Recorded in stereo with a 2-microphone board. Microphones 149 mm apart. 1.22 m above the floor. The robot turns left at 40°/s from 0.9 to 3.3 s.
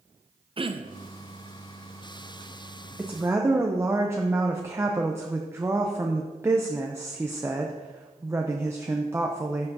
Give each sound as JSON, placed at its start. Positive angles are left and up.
{"t": 0.6, "sound": "throat clearing", "side_deg": -35, "distance_m": 0.5}
{"t": 3.0, "sound": "a woman speaking", "side_deg": -5, "distance_m": 0.7}